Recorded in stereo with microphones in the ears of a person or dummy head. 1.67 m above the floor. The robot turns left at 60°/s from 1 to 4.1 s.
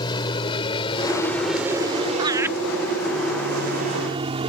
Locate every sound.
0.0 s an aircraft: 25° left (ahead or behind); by 4.5 s 30° right (ahead or behind)
2.2 s laughter: 30° right (ahead or behind); by 2.5 s 5° right (ahead or behind)